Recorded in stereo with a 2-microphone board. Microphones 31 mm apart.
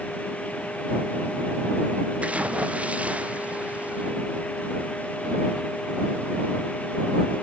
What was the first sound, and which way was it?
A splash, 45° right (ahead or behind).